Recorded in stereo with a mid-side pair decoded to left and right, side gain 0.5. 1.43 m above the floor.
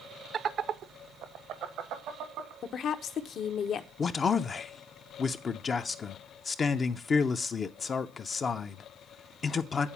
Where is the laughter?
45° right, 0.6 m; by 2.5 s 80° right, 1.6 m.